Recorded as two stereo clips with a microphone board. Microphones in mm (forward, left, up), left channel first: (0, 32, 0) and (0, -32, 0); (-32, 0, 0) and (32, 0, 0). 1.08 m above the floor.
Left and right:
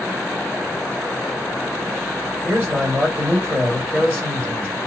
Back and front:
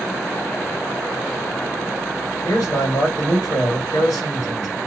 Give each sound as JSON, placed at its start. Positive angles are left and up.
{"t": 2.4, "sound": "a man speaking", "azimuth_deg": -155, "distance_m": 1.7}